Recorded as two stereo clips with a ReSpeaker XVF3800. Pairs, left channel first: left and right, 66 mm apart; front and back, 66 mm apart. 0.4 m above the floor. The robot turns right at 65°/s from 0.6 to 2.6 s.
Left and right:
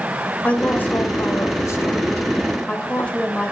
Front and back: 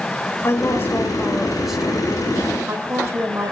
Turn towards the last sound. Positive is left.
turn(degrees=155)